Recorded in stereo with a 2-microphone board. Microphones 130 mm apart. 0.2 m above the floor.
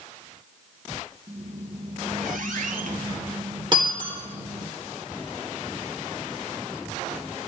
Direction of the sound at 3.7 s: 35° right (ahead or behind).